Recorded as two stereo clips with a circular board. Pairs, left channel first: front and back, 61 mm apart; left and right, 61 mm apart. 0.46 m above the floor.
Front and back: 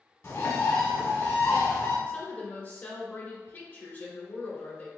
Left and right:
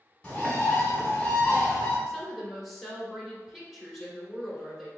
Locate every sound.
0.2 s a bird: 20° left, 1.9 m
2.1 s a woman speaking: 5° left, 1.2 m